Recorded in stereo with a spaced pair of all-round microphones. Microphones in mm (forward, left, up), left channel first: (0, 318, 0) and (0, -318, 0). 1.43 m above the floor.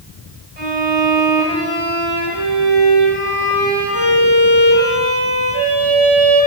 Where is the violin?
40° left (ahead or behind), 8.5 m.